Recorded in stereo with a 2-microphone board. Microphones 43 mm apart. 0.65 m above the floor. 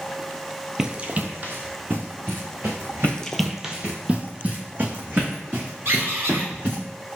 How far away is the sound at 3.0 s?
About 0.7 m.